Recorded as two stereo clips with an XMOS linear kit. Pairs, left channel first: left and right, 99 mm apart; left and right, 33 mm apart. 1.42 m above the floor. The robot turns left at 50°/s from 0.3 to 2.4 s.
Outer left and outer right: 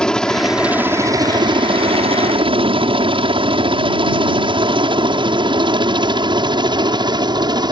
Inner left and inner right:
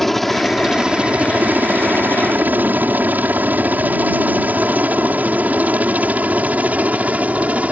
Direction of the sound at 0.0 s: 10° left (ahead or behind).